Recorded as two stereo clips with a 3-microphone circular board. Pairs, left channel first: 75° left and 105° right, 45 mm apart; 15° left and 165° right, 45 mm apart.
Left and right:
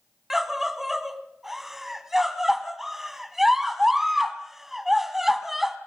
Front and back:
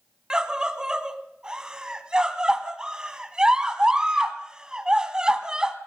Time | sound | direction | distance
0.3 | a scream | straight behind | 1.3 m